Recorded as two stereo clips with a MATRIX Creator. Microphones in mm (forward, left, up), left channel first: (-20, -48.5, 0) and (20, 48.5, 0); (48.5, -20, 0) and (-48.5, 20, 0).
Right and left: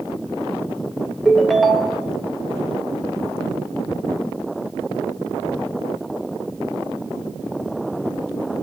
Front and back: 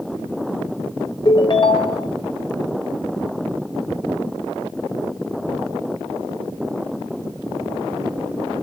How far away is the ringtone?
About 0.6 m.